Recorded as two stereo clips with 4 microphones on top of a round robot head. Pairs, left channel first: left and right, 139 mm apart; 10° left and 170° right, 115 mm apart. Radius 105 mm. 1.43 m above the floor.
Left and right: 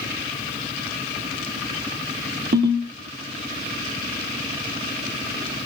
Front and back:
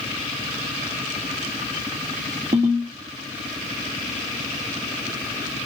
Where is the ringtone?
120° right, 1.4 m.